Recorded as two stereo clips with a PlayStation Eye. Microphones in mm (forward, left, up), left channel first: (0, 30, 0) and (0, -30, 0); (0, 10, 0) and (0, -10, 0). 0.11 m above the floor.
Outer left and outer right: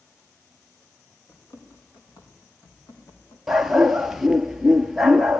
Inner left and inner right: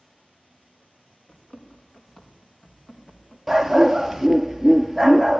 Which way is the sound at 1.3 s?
85° left.